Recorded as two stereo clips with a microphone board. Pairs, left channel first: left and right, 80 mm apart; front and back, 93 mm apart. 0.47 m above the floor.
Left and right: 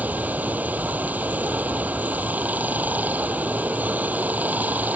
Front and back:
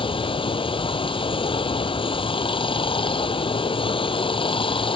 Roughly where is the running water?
Ahead.